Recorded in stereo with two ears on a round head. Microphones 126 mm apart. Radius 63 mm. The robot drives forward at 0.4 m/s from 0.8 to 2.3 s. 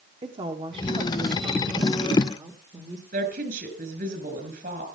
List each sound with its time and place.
0.2 s a woman speaking: 40° right (ahead or behind), 1.4 m; by 3.0 s 30° right (ahead or behind), 1.8 m
3.1 s a woman speaking: 70° right (ahead or behind), 4.5 m